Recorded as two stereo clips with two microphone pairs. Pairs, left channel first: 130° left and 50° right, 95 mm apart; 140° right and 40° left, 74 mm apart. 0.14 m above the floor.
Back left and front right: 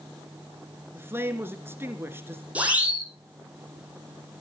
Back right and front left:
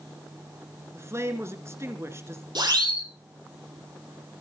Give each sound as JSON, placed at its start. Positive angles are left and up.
{"t": 0.9, "sound": "a man speaking", "azimuth_deg": 5, "distance_m": 2.5}
{"t": 2.5, "sound": "a siren", "azimuth_deg": 25, "distance_m": 7.0}